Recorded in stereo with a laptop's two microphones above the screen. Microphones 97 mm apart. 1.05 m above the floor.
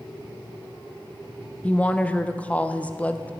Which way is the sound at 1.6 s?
15° left (ahead or behind).